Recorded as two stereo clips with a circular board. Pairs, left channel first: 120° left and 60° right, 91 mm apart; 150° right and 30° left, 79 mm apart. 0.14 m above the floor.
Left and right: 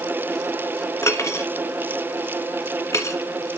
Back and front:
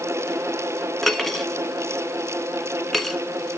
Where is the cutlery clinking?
125° left, 1.0 m.